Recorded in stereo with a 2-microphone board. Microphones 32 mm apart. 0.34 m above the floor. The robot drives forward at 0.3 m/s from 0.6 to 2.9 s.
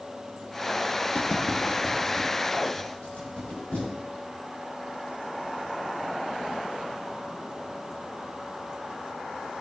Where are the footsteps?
55° left (ahead or behind), 0.5 m.